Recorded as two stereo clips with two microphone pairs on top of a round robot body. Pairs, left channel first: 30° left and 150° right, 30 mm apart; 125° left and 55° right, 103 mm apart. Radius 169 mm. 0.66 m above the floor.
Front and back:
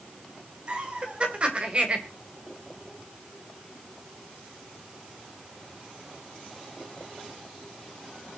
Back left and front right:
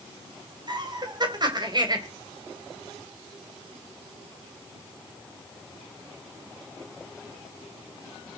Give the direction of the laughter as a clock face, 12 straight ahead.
3 o'clock.